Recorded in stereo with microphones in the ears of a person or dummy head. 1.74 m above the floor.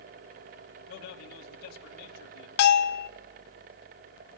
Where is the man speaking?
55° left (ahead or behind), 2.5 m.